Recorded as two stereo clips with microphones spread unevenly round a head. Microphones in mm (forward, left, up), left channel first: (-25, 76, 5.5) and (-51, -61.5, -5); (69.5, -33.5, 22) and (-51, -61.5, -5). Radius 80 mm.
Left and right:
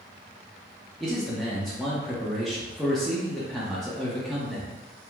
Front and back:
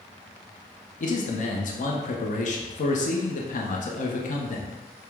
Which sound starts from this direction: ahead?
A man speaking, at 1.0 s.